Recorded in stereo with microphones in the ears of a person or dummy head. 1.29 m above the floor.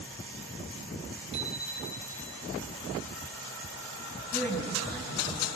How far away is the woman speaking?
About 8.5 m.